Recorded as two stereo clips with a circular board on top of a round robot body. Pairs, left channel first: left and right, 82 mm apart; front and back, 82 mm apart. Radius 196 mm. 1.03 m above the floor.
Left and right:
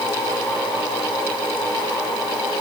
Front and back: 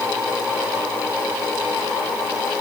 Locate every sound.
Only background noise.